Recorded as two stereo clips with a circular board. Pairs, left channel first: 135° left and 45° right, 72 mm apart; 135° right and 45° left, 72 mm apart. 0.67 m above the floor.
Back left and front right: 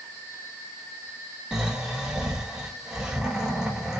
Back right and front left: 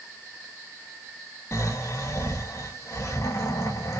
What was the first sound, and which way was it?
Snoring, 125° right.